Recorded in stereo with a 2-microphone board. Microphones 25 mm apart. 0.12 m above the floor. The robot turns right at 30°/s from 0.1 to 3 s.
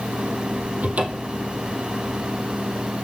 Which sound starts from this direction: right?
A cupboard door, at 0.8 s.